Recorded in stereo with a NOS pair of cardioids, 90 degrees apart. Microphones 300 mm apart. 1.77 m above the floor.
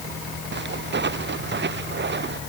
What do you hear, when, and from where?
0.5 s footsteps: 35° right